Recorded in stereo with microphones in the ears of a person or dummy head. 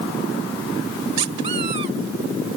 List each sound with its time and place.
1.2 s a squeak: 35° right (ahead or behind)